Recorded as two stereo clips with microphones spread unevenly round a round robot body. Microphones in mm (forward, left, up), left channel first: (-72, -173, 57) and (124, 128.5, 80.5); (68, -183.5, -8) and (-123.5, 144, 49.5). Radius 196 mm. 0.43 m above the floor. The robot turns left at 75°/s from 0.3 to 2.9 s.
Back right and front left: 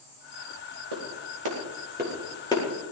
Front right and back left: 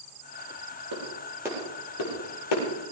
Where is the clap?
75° left, 8.5 m; by 2.6 s 50° right, 8.5 m.